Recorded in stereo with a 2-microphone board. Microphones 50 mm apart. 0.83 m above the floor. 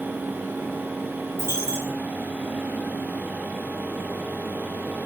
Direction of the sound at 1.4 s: 70° right (ahead or behind).